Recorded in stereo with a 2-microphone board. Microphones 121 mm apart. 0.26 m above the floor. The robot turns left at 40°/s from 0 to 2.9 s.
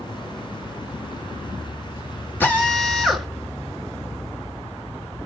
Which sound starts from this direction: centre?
A drill, at 2.4 s.